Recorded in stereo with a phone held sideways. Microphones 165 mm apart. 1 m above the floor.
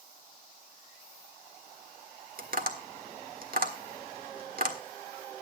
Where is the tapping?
60° right (ahead or behind), 1.5 m.